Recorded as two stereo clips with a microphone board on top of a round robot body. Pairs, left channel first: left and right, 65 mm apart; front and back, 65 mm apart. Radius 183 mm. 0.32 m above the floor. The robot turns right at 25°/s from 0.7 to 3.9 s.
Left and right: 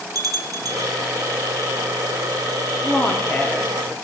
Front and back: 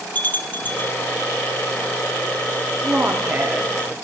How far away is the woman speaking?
About 1.6 m.